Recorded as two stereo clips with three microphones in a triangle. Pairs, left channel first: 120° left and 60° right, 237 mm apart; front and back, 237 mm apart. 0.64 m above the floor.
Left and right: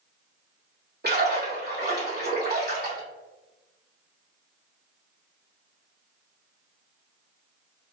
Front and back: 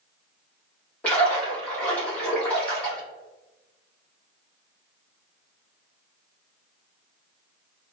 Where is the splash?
85° right, 1.7 m.